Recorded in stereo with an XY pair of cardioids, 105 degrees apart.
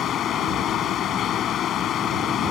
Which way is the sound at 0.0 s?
70° left.